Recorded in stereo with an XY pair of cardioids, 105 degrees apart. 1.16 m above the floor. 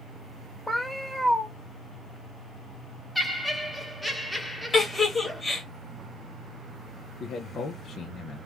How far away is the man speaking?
About 0.5 m.